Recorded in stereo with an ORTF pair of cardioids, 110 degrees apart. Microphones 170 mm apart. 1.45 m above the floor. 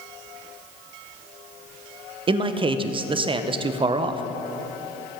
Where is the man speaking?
30° right, 0.8 m.